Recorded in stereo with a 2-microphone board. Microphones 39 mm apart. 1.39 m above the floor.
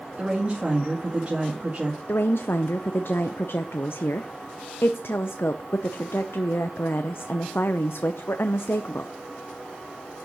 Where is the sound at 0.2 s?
25° right (ahead or behind), 2 m.